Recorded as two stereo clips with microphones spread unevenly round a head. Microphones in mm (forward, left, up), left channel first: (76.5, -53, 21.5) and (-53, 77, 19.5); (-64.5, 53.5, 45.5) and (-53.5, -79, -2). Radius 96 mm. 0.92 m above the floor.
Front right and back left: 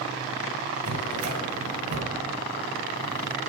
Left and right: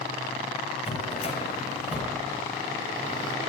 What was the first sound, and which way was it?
A drawer, 135° left.